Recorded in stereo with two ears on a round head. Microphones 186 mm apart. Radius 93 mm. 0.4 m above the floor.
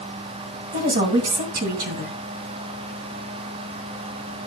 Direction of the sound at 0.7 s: 40° right (ahead or behind).